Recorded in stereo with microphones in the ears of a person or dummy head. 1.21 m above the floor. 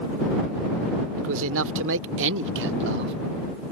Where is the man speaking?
75° right (ahead or behind); by 3.1 s 55° right (ahead or behind).